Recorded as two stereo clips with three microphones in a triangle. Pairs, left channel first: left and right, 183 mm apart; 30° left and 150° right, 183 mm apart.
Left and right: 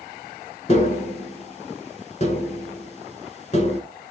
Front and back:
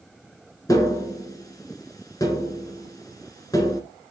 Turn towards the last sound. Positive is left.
turn(degrees=85)